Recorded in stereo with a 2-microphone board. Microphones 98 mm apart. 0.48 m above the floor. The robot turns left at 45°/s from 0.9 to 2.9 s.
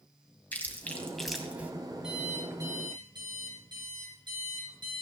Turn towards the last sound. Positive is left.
turn(degrees=-45)